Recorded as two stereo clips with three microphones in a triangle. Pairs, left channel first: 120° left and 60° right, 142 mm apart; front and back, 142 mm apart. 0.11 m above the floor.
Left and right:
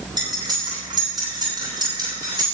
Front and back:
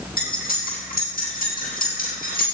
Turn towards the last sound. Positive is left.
turn(degrees=0)